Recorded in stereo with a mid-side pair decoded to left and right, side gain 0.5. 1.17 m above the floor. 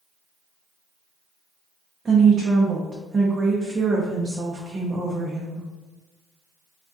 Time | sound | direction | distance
2.0 | a woman speaking | 30° right | 0.6 m